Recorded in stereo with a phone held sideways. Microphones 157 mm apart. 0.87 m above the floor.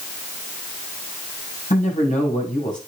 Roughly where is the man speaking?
Left.